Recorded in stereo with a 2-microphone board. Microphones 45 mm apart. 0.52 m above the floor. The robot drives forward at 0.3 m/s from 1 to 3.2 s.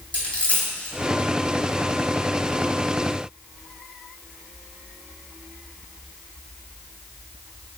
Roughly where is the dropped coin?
Left.